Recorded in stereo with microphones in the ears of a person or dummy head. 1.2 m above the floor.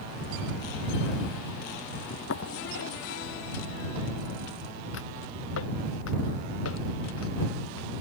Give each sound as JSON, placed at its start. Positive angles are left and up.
{"t": 2.1, "sound": "footsteps", "side_deg": 75}